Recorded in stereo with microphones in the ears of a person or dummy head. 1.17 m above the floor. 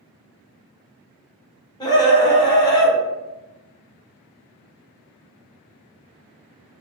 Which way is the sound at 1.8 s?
20° left (ahead or behind).